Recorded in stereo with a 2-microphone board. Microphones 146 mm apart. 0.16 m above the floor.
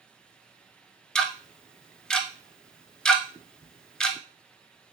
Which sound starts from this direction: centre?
Ticking, at 1.1 s.